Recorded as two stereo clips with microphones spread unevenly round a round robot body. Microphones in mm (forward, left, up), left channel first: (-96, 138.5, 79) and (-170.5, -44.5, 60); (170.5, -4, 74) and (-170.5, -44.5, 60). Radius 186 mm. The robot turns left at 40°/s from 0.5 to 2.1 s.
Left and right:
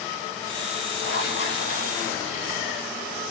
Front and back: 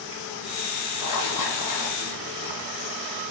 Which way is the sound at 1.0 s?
55° left.